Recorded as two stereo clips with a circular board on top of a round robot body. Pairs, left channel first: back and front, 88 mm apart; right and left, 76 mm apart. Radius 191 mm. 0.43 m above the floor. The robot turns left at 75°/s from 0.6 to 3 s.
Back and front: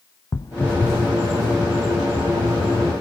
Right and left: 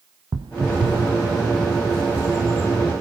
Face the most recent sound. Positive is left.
turn(degrees=-55)